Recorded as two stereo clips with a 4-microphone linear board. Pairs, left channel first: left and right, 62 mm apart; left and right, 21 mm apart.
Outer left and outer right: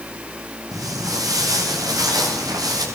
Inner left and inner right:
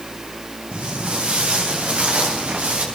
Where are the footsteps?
70° right (ahead or behind), 7.5 m; by 2.9 s 85° right, 8 m.